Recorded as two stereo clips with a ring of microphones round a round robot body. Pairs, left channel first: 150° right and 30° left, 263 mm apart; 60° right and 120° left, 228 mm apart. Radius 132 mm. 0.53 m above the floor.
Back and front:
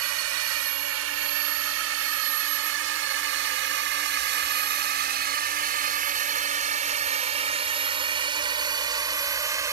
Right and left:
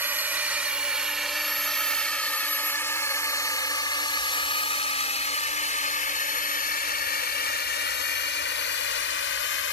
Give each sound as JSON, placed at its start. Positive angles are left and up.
{"t": 0.0, "sound": "a drone", "azimuth_deg": 40}